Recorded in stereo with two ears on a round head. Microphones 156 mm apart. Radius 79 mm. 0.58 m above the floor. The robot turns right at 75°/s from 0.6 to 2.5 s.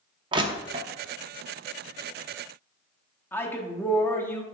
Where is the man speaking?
15° left (ahead or behind), 1.0 m.